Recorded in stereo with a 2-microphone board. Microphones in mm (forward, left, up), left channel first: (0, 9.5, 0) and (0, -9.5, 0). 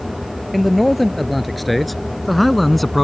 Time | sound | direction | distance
0.5 | a man speaking | centre (ahead or behind) | ?